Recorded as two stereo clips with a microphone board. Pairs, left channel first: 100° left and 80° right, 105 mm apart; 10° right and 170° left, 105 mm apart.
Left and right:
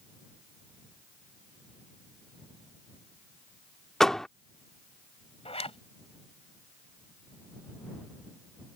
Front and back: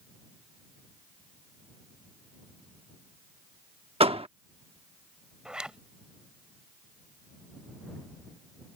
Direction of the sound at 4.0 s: 175° right.